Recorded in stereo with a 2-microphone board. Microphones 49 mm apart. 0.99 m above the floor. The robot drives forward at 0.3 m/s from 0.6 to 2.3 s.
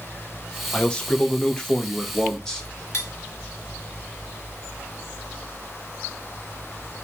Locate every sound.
0.7 s a man speaking: 20° left (ahead or behind), 0.6 m; by 2.7 s 15° left (ahead or behind), 1.0 m
2.9 s cutlery clinking: 55° left (ahead or behind), 1.3 m